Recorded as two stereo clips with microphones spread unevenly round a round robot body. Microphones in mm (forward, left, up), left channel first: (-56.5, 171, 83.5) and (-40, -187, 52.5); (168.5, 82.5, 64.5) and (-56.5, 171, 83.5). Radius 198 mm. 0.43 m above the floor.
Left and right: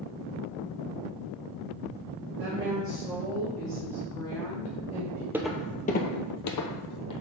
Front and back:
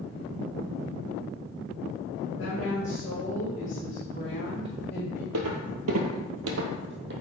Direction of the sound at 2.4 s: 35° right.